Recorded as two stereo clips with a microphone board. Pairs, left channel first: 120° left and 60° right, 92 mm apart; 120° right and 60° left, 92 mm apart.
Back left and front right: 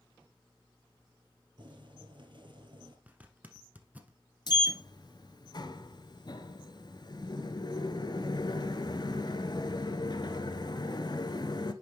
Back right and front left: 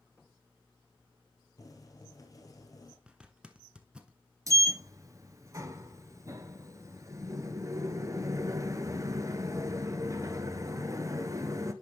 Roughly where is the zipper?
Ahead.